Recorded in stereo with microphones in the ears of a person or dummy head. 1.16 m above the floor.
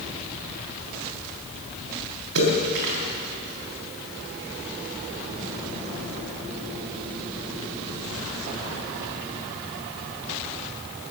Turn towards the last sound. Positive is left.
turn(degrees=-85)